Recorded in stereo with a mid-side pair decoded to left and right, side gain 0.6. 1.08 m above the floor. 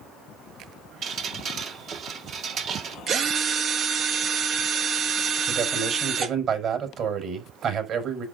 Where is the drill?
50° right, 1.6 m.